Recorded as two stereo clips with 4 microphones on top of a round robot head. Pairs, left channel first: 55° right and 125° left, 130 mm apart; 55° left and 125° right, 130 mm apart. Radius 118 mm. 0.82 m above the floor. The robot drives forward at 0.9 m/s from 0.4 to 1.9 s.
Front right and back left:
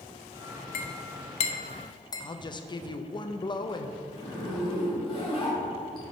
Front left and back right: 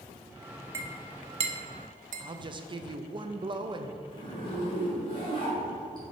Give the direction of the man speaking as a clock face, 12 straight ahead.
3 o'clock.